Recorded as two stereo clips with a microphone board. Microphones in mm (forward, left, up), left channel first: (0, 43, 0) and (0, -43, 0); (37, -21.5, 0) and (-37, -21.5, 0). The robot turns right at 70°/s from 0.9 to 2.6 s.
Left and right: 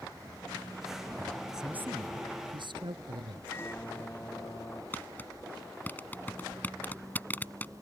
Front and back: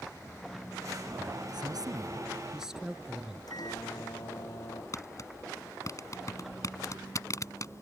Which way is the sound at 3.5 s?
25° left.